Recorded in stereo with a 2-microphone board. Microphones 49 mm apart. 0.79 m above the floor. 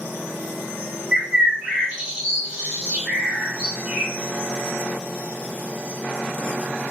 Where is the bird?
25° right (ahead or behind), 1.1 m.